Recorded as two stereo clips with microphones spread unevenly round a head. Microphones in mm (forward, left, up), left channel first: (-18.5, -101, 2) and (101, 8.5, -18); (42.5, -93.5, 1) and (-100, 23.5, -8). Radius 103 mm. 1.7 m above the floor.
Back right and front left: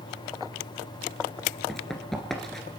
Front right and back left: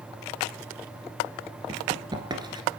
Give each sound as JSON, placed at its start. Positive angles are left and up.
{"t": 1.7, "sound": "running footsteps", "azimuth_deg": 160, "distance_m": 1.7}